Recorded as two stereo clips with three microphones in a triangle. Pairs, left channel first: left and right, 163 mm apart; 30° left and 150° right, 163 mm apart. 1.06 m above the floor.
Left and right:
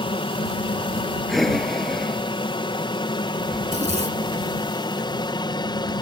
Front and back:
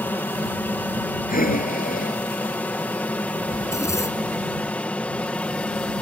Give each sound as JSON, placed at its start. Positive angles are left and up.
{"t": 0.0, "sound": "an aircraft", "azimuth_deg": 100}
{"t": 1.3, "sound": "breathing", "azimuth_deg": 0}
{"t": 3.6, "sound": "a zipper", "azimuth_deg": -40}